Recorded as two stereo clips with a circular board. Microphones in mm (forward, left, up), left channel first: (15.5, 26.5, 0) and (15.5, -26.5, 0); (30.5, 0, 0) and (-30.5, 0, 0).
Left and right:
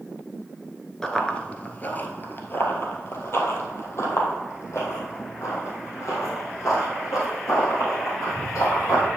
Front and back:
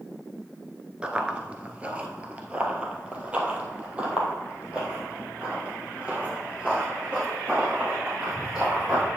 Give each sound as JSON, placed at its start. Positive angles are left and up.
{"t": 1.0, "sound": "running footsteps", "azimuth_deg": 145, "distance_m": 1.0}